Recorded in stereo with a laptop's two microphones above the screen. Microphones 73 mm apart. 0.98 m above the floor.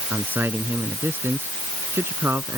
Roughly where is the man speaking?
Right.